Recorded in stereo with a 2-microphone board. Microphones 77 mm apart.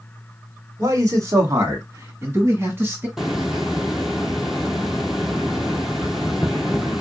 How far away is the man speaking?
About 1.6 m.